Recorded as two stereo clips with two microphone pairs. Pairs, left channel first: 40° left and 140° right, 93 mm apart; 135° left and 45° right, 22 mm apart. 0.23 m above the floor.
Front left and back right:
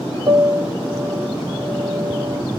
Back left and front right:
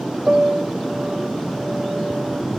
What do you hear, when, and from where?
0.3 s a piano: 90° right, 1.0 m